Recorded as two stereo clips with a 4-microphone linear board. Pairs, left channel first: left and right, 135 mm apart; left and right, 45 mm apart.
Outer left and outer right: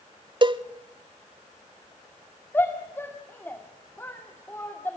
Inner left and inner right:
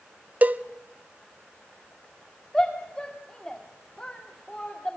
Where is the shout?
15° left (ahead or behind), 1.8 m.